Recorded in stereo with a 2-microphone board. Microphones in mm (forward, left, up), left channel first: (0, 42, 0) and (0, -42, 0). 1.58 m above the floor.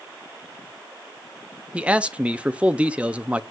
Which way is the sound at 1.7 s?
15° right (ahead or behind).